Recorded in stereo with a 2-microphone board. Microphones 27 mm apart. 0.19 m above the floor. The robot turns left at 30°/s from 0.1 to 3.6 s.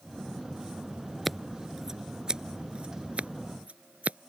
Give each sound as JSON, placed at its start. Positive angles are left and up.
{"t": 1.2, "sound": "scissors", "side_deg": 0}